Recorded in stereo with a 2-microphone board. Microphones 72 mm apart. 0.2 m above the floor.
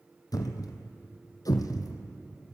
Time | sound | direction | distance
0.3 | a thud | 65° left (ahead or behind) | 1.0 m